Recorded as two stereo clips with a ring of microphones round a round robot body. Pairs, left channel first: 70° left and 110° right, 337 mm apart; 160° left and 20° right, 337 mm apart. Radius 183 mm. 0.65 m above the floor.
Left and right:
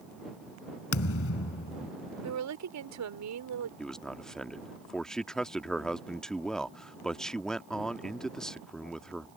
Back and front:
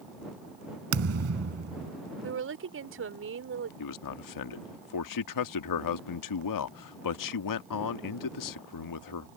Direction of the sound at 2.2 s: 75° right.